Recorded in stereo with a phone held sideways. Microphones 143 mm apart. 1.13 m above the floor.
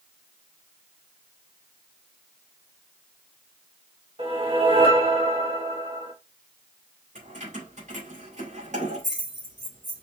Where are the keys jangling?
55° right (ahead or behind), 3 m.